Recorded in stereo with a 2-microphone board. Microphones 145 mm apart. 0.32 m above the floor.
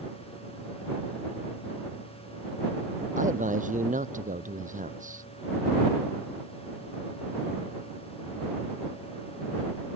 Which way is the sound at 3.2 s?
60° right (ahead or behind).